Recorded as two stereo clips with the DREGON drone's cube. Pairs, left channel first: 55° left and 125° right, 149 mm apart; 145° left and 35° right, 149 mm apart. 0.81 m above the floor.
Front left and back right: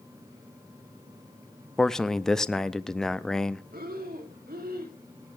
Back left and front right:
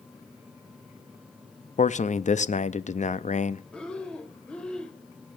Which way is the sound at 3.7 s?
130° right.